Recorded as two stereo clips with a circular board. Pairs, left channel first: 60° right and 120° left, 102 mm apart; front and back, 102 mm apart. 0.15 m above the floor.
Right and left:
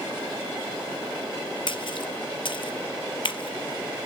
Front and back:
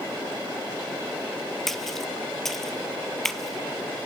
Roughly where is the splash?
Right.